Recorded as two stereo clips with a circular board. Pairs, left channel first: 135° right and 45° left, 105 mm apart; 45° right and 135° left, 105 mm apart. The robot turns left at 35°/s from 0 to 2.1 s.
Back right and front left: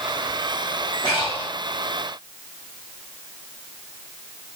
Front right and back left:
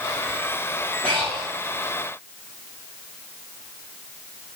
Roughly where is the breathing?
Right.